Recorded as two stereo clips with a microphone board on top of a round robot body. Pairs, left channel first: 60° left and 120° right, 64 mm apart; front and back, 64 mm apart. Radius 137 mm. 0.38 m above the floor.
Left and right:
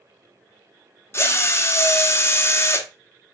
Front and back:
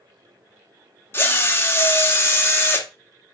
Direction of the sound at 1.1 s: 35° left.